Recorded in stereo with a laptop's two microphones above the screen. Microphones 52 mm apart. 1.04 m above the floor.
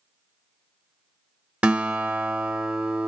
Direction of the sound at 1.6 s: 25° right (ahead or behind).